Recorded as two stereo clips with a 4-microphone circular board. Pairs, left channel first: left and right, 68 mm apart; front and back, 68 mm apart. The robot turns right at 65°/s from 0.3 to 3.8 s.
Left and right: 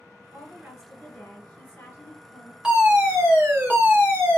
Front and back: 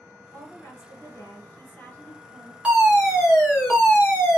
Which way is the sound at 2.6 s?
135° right.